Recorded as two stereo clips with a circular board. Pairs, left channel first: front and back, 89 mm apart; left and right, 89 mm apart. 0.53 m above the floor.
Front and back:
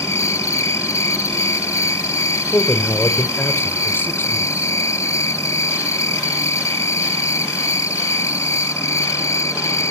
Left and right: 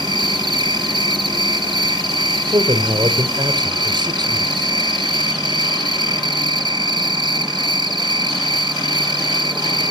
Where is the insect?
55° right, 1.4 m.